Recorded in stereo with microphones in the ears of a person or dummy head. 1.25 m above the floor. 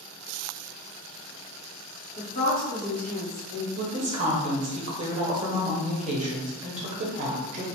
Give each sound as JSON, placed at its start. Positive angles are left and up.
{"t": 2.2, "sound": "a woman speaking", "side_deg": 45, "distance_m": 1.4}
{"t": 3.8, "sound": "a woman speaking", "side_deg": -35, "distance_m": 0.7}